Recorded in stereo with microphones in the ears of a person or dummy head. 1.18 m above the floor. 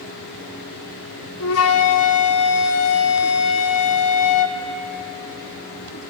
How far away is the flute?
About 0.8 m.